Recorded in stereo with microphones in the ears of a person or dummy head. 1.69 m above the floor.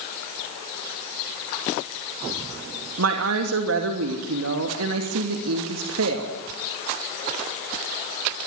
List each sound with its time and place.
3.0 s a woman speaking: 80° right, 2.5 m